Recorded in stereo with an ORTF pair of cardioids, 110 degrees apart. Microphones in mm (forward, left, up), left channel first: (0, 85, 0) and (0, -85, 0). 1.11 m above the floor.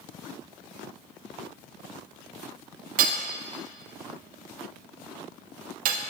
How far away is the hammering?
About 0.8 m.